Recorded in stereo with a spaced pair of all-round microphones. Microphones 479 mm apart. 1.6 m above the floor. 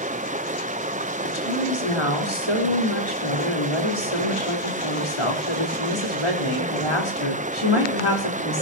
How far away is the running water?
About 0.8 m.